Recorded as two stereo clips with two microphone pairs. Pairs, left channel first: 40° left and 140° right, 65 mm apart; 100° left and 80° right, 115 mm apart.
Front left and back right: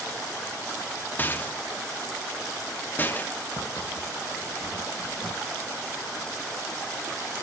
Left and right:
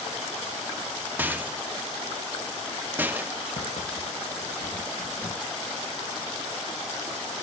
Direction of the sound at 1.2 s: 10° right.